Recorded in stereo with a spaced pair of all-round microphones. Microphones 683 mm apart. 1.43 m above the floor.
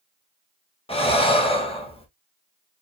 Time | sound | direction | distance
0.9 | breathing | 10° left (ahead or behind) | 1.1 m